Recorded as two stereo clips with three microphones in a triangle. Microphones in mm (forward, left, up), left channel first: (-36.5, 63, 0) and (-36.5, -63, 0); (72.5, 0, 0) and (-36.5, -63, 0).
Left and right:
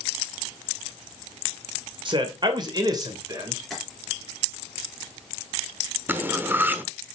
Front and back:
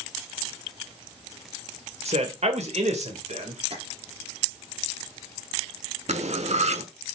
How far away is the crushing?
I don't hear crushing.